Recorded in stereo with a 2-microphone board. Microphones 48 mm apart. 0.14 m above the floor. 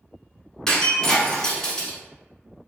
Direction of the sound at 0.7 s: 15° left (ahead or behind).